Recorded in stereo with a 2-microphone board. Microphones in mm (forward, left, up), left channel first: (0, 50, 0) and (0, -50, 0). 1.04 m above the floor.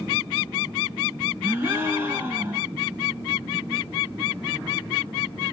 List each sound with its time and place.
1.4 s a gasp: 25° right (ahead or behind), 0.9 m